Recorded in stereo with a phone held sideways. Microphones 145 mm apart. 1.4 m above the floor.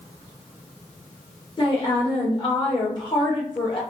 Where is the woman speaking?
30° left (ahead or behind), 1.7 m.